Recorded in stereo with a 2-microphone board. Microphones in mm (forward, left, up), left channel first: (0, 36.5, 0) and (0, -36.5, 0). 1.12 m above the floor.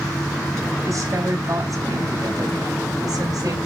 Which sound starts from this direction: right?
A woman speaking, at 0.8 s.